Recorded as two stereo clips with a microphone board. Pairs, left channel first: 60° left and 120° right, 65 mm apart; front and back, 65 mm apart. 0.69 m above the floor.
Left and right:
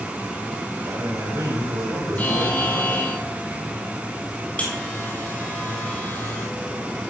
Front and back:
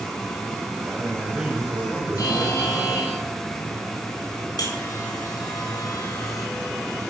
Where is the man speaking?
105° right, 3.5 m; by 3.2 s 115° right, 5.5 m.